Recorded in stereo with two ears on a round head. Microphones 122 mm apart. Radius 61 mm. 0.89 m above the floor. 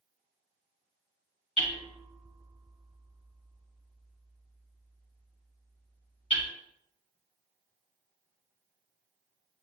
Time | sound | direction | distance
1.6 | hammering | 45° left (ahead or behind) | 1.9 m